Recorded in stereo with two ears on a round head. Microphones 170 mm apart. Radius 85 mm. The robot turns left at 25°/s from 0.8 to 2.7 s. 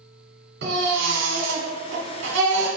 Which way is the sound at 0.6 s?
60° right.